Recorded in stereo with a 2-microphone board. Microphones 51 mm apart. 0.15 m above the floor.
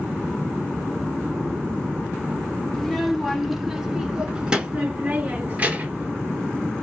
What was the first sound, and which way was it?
A child speaking, 10° left (ahead or behind).